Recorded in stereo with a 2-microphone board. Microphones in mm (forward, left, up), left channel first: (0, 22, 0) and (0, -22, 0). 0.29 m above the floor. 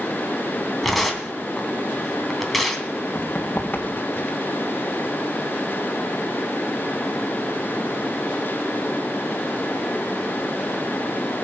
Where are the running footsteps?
40° left (ahead or behind), 3.5 m.